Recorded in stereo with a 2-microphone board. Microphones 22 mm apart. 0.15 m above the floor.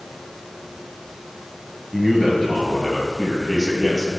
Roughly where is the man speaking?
Centre.